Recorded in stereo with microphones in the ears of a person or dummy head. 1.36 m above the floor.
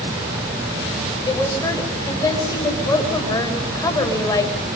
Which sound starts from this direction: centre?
A woman speaking, at 1.3 s.